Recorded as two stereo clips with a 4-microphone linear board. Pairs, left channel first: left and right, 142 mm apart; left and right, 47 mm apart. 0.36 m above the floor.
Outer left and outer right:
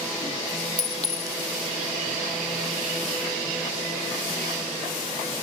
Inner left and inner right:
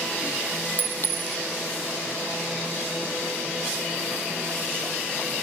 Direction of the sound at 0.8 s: 45° left (ahead or behind).